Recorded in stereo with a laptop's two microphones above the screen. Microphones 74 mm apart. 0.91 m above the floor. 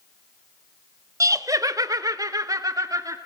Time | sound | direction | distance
1.2 | laughter | 50° right (ahead or behind) | 1.1 m